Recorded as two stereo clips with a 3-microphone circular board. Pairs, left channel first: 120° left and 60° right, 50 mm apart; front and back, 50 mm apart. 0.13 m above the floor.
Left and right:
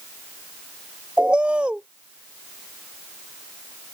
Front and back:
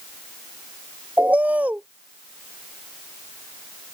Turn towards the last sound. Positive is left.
turn(degrees=-125)